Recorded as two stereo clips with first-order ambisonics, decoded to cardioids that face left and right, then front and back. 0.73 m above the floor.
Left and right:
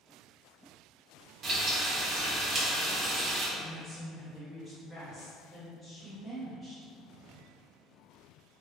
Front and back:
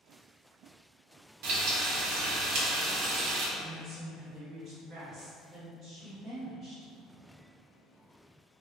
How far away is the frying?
About 0.5 m.